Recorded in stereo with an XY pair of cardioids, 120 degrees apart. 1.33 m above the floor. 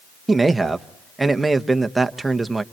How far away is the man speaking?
About 1.1 m.